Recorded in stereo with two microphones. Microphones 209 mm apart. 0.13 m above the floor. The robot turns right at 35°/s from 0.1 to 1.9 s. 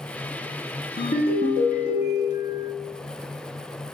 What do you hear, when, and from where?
1.0 s a ringtone: 105° left, 1.0 m; by 2.7 s 135° left, 1.0 m